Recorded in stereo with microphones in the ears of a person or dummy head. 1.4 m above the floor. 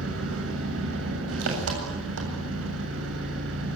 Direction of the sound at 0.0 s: 80° right.